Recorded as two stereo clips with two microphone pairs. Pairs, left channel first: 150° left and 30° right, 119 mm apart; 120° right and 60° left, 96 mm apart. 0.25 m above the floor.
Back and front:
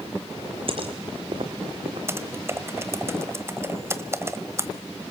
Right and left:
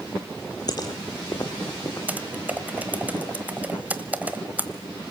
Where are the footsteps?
70° right, 2.5 m; by 2.0 s 65° right, 3 m.